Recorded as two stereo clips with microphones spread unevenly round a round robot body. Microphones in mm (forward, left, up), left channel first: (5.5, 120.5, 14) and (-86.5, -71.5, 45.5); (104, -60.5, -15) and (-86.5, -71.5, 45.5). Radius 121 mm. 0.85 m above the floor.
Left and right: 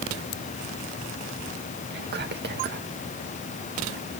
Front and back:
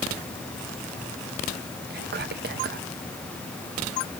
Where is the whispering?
140° right, 1.0 m.